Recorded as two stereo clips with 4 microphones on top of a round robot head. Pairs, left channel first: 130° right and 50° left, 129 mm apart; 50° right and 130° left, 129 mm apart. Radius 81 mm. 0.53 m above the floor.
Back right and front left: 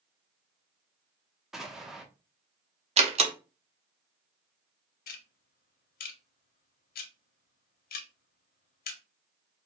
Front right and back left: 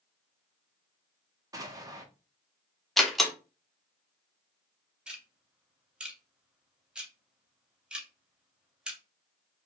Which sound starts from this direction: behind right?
Ticking, at 5.1 s.